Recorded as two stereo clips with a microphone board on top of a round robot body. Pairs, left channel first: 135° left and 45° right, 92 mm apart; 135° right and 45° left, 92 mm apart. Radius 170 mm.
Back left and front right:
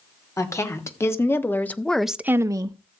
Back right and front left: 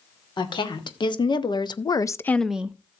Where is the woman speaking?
170° right, 2.5 m; by 2.8 s 20° right, 0.9 m.